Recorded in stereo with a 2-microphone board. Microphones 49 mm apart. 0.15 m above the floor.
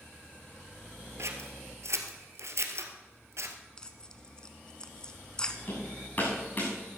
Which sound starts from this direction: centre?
Tearing paper, at 3.8 s.